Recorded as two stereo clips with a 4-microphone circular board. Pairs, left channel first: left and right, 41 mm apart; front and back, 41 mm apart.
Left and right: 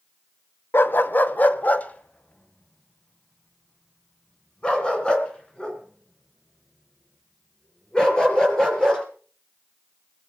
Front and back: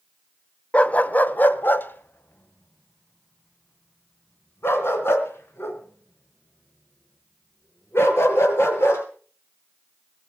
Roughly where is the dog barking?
Ahead left.